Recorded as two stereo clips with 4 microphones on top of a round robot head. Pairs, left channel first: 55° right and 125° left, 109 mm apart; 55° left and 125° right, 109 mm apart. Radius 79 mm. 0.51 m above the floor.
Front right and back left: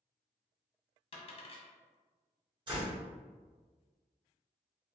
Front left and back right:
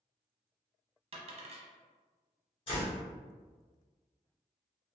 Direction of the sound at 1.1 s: 90° right.